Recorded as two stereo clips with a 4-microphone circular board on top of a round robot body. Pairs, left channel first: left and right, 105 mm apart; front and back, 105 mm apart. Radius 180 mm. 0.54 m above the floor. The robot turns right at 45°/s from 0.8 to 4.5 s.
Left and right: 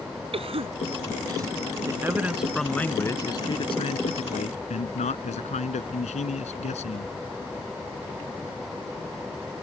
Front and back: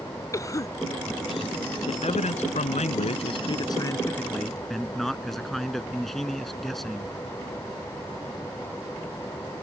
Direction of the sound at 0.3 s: 60° right.